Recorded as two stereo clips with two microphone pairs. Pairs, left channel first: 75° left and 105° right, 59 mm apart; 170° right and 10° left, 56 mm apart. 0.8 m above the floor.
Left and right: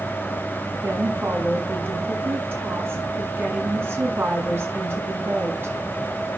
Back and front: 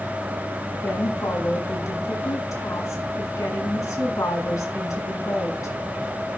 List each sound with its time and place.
0.8 s a woman speaking: 155° right, 6.5 m